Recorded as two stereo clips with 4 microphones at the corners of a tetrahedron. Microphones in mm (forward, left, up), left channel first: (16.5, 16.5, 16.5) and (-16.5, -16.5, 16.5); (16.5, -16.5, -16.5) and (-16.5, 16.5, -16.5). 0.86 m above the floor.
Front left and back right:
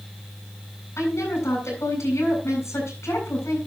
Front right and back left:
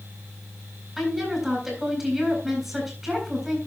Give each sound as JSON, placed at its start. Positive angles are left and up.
{"t": 1.0, "sound": "a woman speaking", "azimuth_deg": 50, "distance_m": 7.5}